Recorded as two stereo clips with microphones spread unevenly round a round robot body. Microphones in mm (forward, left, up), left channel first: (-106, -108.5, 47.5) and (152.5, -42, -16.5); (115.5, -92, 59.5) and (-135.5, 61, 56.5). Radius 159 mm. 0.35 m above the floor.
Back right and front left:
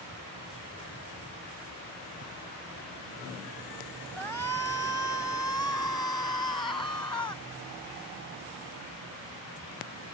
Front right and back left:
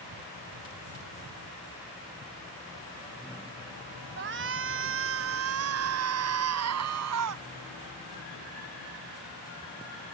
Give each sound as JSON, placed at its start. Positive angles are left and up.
{"t": 4.2, "sound": "a shout", "azimuth_deg": 105}